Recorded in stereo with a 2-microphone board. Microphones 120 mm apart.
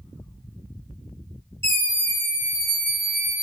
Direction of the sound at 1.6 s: 20° left (ahead or behind).